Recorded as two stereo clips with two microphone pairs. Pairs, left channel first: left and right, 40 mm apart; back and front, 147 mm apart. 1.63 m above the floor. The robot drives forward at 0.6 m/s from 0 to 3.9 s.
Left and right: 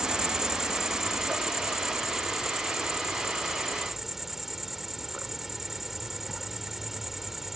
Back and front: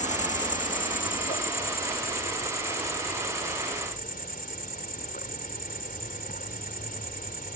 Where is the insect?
160° right; by 7.6 s 175° right.